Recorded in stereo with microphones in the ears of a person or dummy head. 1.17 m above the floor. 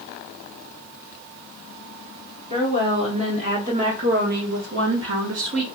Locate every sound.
2.5 s a woman speaking: 25° right (ahead or behind), 2 m; by 5.7 s 65° right (ahead or behind), 0.8 m